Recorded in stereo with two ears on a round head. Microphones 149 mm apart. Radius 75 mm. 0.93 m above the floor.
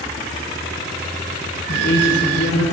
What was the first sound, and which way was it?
A woman speaking, 55° left (ahead or behind).